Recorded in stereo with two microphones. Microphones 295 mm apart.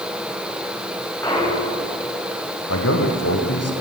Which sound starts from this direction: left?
A man speaking, at 2.7 s.